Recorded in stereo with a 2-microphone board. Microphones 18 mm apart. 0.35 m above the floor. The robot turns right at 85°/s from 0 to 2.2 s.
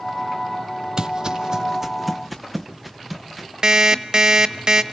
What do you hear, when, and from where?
1.0 s footsteps: 35° right (ahead or behind), 0.5 m; by 3.5 s centre (ahead or behind), 2.5 m
3.6 s an alarm clock: 40° right (ahead or behind), 1.0 m